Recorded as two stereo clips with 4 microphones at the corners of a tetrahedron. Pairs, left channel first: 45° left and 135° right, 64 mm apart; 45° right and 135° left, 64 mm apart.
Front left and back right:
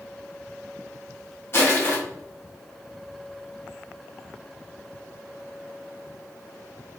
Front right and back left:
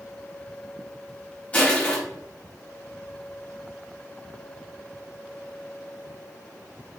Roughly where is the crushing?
Ahead.